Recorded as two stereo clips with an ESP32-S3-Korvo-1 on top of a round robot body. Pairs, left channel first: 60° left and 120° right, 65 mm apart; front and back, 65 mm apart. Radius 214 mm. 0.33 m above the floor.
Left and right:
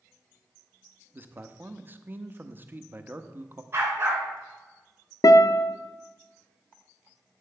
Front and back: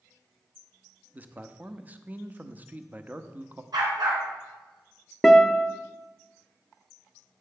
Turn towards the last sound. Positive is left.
turn(degrees=90)